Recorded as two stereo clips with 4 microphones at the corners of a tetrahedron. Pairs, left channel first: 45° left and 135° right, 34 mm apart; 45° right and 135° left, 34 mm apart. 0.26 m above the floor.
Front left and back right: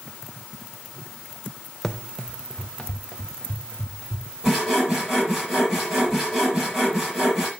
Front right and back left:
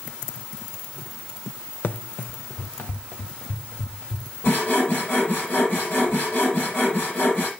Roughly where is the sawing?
Ahead right.